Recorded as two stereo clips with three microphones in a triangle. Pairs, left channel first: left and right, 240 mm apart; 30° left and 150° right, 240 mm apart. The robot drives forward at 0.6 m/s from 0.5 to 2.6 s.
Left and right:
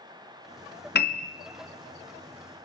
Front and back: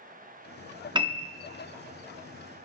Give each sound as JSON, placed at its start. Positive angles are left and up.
{"t": 0.9, "sound": "a piano", "azimuth_deg": 140, "distance_m": 0.6}